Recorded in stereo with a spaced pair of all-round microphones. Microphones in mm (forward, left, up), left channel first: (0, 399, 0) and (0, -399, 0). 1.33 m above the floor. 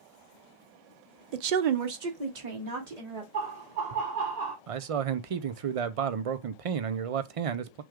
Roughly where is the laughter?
Right.